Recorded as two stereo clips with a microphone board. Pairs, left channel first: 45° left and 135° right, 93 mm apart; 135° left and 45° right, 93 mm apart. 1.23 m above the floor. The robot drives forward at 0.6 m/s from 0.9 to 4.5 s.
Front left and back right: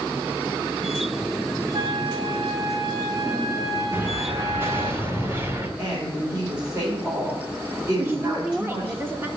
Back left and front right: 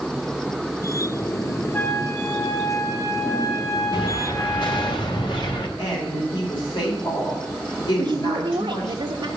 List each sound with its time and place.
1.7 s a flute: 165° right, 0.7 m; by 4.9 s 175° right, 2.5 m
3.9 s an explosion: 155° left, 1.7 m; by 5.7 s 160° left, 2 m
5.8 s a woman speaking: 155° left, 4.5 m
8.0 s a woman speaking: 70° right, 0.9 m